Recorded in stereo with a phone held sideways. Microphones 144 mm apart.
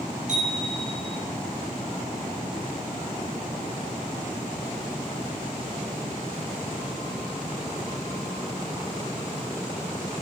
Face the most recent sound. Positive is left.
turn(degrees=-60)  # may be behind; listen again after turning